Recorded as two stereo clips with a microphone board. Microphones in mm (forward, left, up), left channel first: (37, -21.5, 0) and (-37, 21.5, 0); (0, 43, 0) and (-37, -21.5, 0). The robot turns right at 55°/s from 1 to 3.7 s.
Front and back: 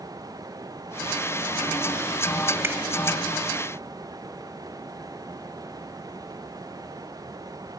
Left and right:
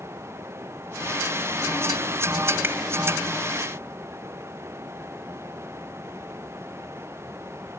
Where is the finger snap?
165° right, 1.2 m; by 2.8 s 155° right, 1.2 m.